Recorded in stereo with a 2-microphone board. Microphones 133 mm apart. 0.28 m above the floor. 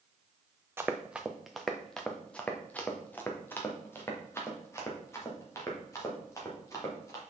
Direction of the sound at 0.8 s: 15° right (ahead or behind).